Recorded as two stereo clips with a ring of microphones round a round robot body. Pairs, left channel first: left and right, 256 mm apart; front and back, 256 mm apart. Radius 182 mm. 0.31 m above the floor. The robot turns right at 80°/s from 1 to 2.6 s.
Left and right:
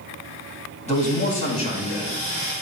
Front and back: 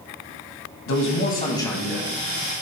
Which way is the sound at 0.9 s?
30° left.